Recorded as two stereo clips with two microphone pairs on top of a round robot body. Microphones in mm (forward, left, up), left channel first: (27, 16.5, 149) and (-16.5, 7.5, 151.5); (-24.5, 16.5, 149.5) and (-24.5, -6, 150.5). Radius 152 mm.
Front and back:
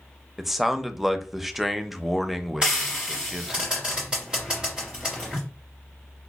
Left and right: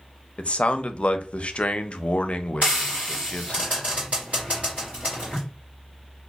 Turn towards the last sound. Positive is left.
turn(degrees=-100)